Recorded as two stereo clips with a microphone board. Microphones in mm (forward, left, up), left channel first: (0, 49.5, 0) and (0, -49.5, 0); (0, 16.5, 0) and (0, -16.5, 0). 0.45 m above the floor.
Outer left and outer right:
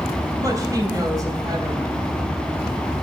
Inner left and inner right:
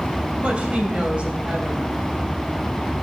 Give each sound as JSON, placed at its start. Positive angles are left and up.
{"t": 0.4, "sound": "a woman speaking", "side_deg": -35, "distance_m": 3.0}